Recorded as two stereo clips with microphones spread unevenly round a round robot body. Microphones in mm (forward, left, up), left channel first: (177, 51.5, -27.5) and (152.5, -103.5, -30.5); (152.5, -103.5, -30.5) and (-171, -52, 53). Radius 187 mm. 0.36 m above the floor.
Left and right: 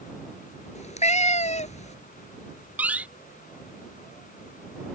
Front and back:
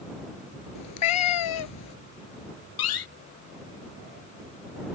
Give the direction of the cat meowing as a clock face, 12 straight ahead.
11 o'clock.